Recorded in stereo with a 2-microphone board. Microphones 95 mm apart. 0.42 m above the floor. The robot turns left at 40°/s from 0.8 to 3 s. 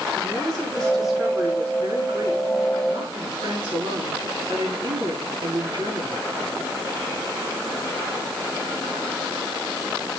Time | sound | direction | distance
0.1 | a woman speaking | 10° left | 6.5 m